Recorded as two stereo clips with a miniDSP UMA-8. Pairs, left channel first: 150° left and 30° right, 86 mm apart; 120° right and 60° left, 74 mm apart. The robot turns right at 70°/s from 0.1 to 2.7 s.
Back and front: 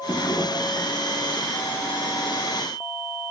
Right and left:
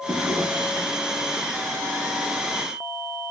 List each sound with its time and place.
0.1 s a drawer: 100° left, 0.9 m; by 0.9 s 155° left, 0.9 m